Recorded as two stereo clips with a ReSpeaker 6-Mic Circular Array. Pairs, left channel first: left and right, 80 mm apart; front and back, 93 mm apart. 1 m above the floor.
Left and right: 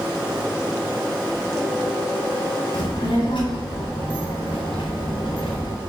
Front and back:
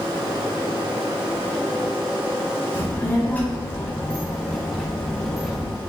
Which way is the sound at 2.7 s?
65° left.